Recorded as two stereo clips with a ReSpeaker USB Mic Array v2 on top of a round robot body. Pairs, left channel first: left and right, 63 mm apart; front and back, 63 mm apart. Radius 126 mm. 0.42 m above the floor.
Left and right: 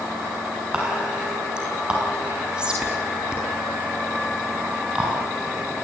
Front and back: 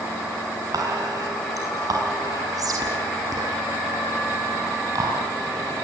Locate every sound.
0.7 s whispering: 165° right, 6 m